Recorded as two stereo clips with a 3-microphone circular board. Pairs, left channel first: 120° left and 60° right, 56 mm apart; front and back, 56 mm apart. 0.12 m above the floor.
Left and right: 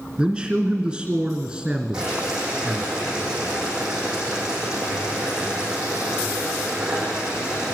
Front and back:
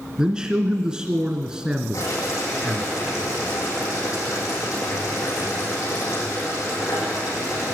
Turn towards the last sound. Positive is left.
turn(degrees=15)